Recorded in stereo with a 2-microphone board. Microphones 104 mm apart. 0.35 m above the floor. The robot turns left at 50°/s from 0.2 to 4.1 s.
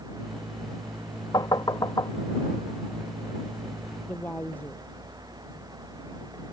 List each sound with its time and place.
1.3 s knocking: 40° left (ahead or behind)
4.0 s a woman speaking: 15° left (ahead or behind)